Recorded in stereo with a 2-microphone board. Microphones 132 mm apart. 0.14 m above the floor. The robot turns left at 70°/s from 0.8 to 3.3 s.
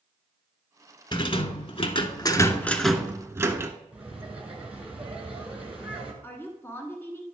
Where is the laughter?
10° right (ahead or behind), 2 m.